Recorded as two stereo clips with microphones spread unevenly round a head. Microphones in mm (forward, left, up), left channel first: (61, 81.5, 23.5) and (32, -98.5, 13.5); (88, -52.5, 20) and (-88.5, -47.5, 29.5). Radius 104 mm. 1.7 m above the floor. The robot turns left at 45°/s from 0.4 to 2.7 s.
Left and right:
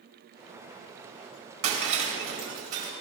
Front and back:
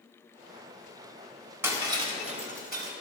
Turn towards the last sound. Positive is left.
turn(degrees=-155)